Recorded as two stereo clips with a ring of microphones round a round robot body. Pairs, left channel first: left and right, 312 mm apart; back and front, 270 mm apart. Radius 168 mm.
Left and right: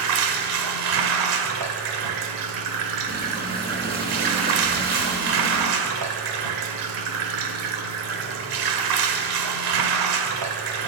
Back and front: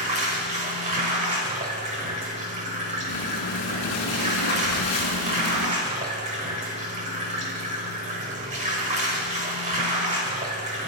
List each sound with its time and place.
0.0 s running water: 70° right, 1.3 m
3.1 s breathing: 150° right, 2 m